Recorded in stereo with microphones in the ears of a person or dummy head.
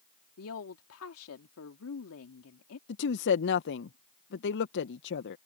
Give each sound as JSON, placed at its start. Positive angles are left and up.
{"t": 0.4, "sound": "a woman speaking", "side_deg": 80}
{"t": 2.9, "sound": "a woman speaking", "side_deg": 65}